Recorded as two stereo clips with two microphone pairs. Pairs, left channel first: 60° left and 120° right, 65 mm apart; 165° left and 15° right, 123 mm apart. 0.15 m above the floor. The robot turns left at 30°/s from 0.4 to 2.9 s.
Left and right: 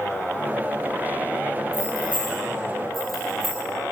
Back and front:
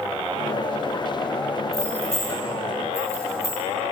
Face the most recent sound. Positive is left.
turn(degrees=145)